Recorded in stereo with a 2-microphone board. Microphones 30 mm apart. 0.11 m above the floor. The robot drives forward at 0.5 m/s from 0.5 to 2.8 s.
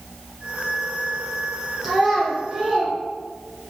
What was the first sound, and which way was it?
A child speaking, 10° right (ahead or behind).